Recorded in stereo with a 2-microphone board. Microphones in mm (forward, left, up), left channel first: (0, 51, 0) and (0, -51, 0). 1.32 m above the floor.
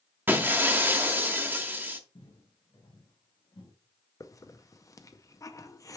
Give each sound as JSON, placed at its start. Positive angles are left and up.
{"t": 0.3, "sound": "breaking glass", "side_deg": -20, "distance_m": 1.2}
{"t": 2.1, "sound": "footsteps", "side_deg": 50, "distance_m": 3.5}
{"t": 4.2, "sound": "a hiss", "side_deg": 35, "distance_m": 0.7}